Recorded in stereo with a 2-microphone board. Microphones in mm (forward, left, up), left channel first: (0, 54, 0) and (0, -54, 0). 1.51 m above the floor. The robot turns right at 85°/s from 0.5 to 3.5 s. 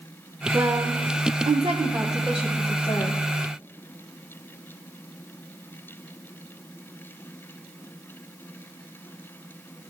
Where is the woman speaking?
20° right (ahead or behind), 0.9 m; by 3.2 s 55° left (ahead or behind), 0.9 m.